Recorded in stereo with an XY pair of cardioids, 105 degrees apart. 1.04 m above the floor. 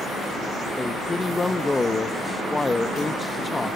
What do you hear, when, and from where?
0.8 s a man speaking: 20° left, 0.8 m